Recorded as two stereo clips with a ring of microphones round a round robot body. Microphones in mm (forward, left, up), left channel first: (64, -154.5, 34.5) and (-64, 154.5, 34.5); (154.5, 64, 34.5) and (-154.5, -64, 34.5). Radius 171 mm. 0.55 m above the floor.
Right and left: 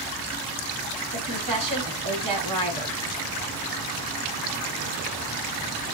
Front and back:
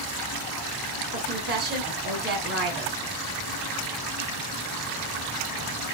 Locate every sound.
1.1 s a woman speaking: 140° left, 6.5 m